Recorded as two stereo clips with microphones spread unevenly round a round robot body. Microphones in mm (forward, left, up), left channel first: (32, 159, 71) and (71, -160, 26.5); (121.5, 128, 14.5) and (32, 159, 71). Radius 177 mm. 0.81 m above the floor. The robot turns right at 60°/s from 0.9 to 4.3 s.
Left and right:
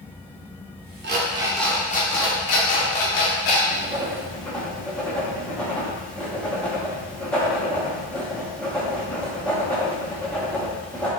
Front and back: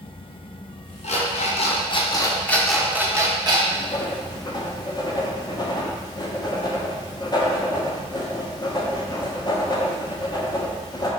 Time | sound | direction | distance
1.0 | an alarm clock | 25° right | 0.9 m
3.7 | writing | 30° right | 1.0 m